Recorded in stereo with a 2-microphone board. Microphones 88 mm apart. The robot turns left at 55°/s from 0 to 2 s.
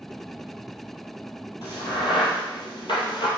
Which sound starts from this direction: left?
A crack, at 1.6 s.